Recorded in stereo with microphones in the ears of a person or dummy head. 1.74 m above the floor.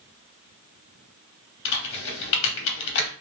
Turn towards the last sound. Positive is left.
turn(degrees=70)  # may be behind; listen again after turning